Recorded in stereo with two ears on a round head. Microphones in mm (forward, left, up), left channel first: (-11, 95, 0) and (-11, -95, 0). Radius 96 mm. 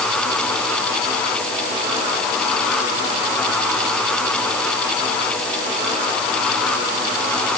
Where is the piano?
I don't hear a piano.